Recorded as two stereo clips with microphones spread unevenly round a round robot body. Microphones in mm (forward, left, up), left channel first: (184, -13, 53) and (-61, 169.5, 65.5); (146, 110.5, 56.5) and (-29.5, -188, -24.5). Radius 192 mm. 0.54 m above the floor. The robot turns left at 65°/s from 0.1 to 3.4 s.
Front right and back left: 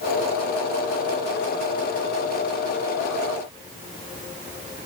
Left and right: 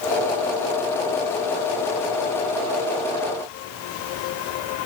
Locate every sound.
Only background noise.